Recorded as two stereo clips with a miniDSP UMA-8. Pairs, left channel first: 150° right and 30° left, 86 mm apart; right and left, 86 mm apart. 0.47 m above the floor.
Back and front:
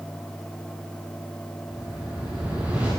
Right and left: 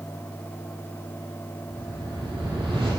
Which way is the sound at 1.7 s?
100° left.